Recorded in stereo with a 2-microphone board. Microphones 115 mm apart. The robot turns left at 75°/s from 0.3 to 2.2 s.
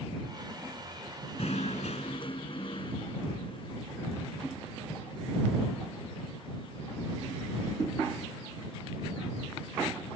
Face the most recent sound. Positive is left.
turn(degrees=50)